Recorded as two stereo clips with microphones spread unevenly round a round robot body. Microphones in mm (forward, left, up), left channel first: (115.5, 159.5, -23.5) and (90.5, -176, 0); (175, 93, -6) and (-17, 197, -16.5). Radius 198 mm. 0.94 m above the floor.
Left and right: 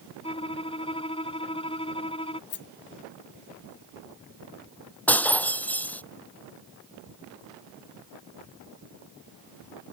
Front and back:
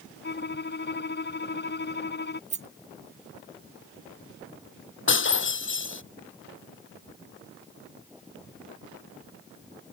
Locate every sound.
0.2 s a violin: 10° left
2.5 s a rattle: 120° left
5.1 s breaking glass: straight ahead